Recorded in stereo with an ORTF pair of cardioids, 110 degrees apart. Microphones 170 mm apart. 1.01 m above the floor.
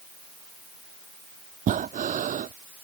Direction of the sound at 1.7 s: 50° right.